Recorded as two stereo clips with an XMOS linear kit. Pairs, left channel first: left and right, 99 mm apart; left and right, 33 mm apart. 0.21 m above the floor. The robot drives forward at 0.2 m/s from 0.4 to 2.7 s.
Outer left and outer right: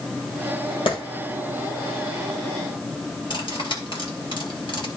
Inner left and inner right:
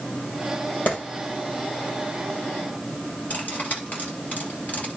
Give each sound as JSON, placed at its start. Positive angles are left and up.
{"t": 0.9, "sound": "a clap", "side_deg": 60, "distance_m": 3.5}
{"t": 3.3, "sound": "cutlery clinking", "side_deg": 55, "distance_m": 2.5}